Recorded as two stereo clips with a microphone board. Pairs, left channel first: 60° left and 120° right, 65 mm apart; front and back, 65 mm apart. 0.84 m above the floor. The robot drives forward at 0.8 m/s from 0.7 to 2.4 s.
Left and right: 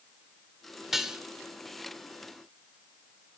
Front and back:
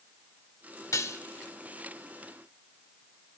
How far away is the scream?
No scream in this recording.